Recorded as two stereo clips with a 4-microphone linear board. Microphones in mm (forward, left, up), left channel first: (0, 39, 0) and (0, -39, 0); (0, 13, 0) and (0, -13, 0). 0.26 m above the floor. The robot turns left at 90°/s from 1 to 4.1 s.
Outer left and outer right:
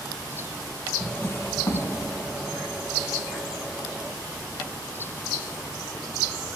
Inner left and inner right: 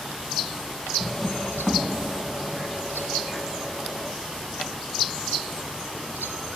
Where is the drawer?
175° left, 0.8 m; by 1.9 s 95° left, 0.8 m.